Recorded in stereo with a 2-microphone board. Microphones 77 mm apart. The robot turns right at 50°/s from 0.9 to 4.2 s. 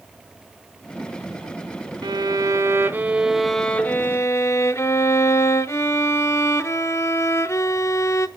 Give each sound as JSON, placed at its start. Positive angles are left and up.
{"t": 2.0, "sound": "a violin", "azimuth_deg": -75, "distance_m": 0.6}